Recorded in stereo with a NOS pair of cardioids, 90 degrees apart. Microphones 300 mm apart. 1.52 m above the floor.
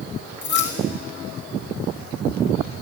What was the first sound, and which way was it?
Keys jangling, 40° left.